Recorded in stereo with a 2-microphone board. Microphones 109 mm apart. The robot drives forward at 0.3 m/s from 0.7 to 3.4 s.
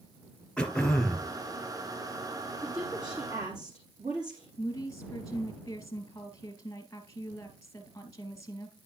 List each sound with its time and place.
0.6 s throat clearing: 10° left (ahead or behind), 1.1 m
2.6 s a woman speaking: 35° right (ahead or behind), 4 m
4.6 s a woman speaking: 30° left (ahead or behind), 1.7 m